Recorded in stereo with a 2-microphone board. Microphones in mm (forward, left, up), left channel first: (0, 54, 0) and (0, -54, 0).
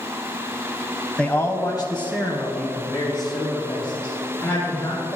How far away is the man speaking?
About 1.0 m.